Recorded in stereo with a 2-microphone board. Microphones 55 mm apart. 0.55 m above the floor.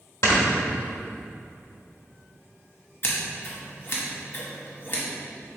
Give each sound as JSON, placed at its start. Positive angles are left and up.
{"t": 0.2, "sound": "snoring", "side_deg": 65, "distance_m": 1.1}
{"t": 3.0, "sound": "scissors", "side_deg": 45, "distance_m": 1.0}